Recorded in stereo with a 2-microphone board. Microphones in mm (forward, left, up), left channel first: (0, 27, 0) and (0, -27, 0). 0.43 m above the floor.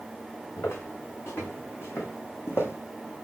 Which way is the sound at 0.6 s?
50° left (ahead or behind).